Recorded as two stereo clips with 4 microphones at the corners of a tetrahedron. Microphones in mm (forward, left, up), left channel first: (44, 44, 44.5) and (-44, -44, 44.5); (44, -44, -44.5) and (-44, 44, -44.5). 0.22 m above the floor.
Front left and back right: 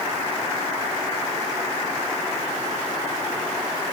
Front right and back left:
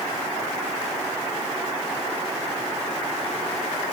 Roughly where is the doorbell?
No doorbell in this recording.